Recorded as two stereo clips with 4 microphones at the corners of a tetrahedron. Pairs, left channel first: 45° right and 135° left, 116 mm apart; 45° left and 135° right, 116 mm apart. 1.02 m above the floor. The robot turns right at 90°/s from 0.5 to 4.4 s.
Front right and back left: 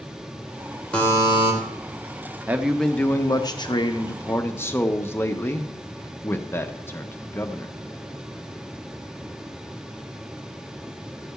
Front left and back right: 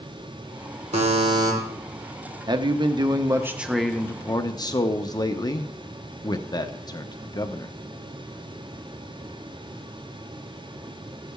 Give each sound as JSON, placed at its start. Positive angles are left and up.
{"t": 0.9, "sound": "a buzzer", "azimuth_deg": -125, "distance_m": 2.5}
{"t": 2.5, "sound": "a man speaking", "azimuth_deg": -160, "distance_m": 0.9}